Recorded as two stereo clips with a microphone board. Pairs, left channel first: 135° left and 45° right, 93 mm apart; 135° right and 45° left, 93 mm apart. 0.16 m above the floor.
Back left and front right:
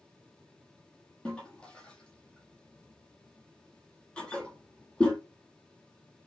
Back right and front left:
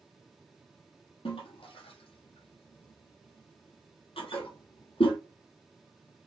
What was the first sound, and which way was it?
A toilet flushing, 145° right.